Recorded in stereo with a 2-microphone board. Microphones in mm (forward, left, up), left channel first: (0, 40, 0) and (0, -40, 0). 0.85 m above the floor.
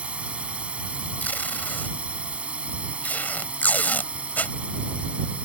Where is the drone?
15° right (ahead or behind).